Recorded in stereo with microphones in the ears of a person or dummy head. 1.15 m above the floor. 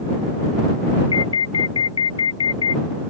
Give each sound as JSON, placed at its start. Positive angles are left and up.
{"t": 1.1, "sound": "an alarm", "side_deg": 25}